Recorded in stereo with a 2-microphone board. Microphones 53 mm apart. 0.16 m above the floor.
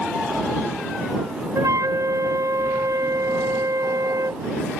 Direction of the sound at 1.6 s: 80° right.